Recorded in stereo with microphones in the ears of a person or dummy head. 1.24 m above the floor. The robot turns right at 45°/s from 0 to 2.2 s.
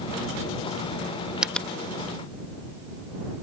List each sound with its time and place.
1.4 s a finger snap: centre (ahead or behind); by 1.7 s 10° left (ahead or behind)